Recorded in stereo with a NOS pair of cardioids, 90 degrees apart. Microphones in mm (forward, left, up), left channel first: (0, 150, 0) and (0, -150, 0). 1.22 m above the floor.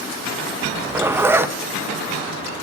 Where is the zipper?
10° right, 1.1 m.